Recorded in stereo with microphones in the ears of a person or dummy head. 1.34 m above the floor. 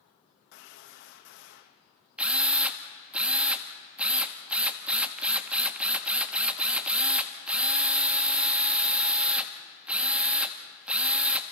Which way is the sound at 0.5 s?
65° left (ahead or behind).